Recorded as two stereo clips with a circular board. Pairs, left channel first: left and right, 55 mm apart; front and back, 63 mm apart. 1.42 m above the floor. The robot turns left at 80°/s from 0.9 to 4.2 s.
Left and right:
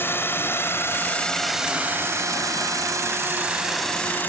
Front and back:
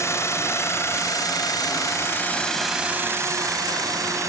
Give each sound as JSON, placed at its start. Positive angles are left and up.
{"t": 0.0, "sound": "a drone", "azimuth_deg": 40}